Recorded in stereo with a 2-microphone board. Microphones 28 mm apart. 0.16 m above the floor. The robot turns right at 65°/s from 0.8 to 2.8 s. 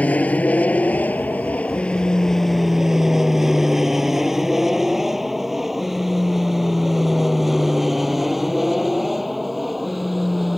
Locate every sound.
0.0 s an aircraft: 55° left (ahead or behind); by 10.6 s 5° right (ahead or behind)